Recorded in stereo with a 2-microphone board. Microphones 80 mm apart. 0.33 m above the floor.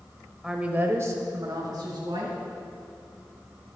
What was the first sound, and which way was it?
A woman speaking, 5° right (ahead or behind).